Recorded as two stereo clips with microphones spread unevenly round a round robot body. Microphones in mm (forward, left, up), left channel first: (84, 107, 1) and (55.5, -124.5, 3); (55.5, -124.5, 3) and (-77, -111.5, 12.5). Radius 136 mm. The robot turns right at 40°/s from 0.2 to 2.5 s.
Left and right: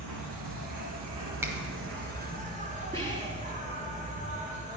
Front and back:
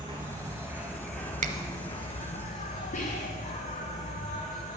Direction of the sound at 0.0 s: 130° right.